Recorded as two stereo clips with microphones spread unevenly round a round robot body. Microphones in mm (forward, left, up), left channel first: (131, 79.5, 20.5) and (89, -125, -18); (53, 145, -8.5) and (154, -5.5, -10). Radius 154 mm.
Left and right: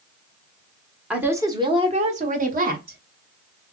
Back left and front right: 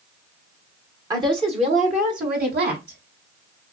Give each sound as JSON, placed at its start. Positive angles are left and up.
{"t": 1.1, "sound": "a woman speaking", "azimuth_deg": -60, "distance_m": 0.9}